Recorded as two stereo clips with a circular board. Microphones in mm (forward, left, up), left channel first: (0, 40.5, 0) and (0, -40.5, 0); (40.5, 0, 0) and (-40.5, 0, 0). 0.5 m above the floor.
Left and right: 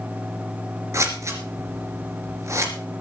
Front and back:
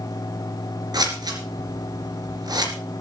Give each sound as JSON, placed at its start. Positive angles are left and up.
{"t": 0.9, "sound": "scissors", "azimuth_deg": -145, "distance_m": 2.5}